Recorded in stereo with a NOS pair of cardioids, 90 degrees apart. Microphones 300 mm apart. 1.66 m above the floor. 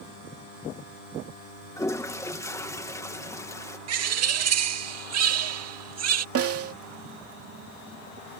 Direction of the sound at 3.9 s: 60° right.